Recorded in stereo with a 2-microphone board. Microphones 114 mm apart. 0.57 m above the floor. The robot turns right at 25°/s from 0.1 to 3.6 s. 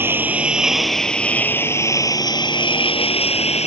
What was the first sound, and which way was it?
A lawn mower, 20° right.